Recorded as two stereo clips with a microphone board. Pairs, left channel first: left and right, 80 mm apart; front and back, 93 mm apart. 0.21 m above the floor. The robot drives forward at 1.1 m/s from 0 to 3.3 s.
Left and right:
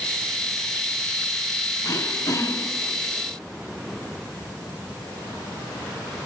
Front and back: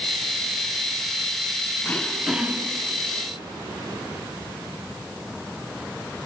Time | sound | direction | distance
1.8 | throat clearing | 60° left | 1.2 m